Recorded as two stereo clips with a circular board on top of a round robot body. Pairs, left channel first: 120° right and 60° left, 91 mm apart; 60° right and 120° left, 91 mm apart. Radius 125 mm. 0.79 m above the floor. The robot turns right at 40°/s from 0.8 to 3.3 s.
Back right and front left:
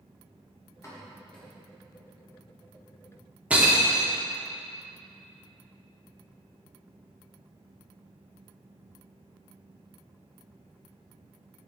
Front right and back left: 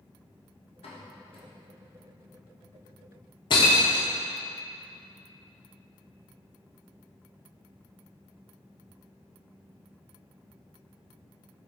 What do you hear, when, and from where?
0.8 s a pop: 60° right, 1.6 m; by 1.5 s 35° right, 1.6 m
3.5 s breaking glass: 20° right, 0.6 m